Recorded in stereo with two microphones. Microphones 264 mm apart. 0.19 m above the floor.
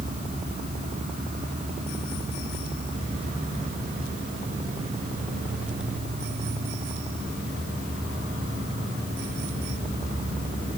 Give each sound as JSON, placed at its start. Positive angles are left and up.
{"t": 0.0, "sound": "an insect", "side_deg": -35, "distance_m": 8.5}